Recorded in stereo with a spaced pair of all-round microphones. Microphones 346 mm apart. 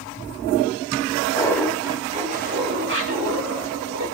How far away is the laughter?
About 1.3 m.